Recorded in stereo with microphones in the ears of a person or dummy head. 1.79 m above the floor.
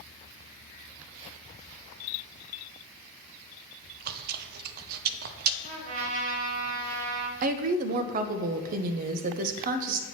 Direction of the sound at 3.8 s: 55° right (ahead or behind).